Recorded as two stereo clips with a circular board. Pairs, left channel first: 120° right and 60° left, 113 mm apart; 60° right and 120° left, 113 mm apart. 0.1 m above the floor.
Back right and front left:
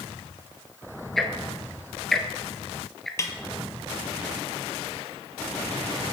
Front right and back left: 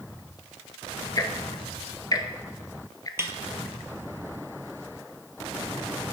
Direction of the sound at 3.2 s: 175° right.